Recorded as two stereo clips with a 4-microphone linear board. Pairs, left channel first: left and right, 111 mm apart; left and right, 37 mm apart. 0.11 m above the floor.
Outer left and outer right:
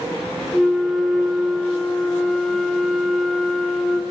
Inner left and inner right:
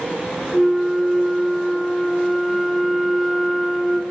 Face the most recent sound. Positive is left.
turn(degrees=0)  # may be behind; listen again after turning